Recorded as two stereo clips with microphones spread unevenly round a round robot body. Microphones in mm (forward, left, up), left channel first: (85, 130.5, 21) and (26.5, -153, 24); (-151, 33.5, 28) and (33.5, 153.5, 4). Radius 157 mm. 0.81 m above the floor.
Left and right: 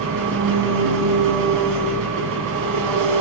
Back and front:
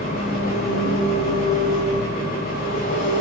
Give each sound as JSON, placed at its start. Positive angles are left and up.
{"t": 0.0, "sound": "an engine running", "azimuth_deg": -80, "distance_m": 5.0}